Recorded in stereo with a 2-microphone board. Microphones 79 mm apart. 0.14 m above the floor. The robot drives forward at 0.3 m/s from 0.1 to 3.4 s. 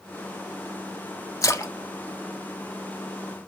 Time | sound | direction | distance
1.4 | a splash | 40° left (ahead or behind) | 0.5 m